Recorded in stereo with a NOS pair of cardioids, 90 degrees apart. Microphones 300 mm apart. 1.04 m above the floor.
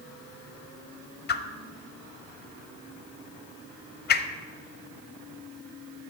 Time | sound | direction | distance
1.3 | a whoosh | 35° left | 0.5 m